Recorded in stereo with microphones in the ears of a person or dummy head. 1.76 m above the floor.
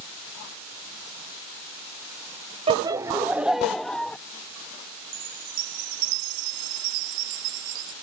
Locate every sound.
2.7 s laughter: 35° right (ahead or behind); by 4.2 s 5° left (ahead or behind)
5.1 s a chime: 65° right (ahead or behind)